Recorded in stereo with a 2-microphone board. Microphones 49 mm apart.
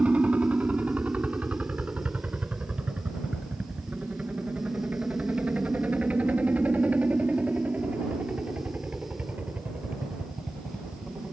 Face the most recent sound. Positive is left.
turn(degrees=-30)  # may be behind; listen again after turning